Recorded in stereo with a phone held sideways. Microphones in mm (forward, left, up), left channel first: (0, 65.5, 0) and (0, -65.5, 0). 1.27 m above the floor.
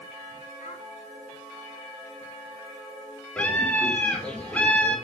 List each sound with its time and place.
0.6 s a child speaking: 70° left (ahead or behind), 3.5 m
3.4 s a scream: 10° left (ahead or behind), 5 m